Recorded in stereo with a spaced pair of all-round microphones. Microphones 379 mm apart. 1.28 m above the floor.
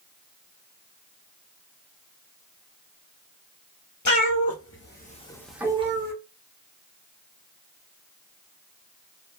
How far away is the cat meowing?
About 1.0 m.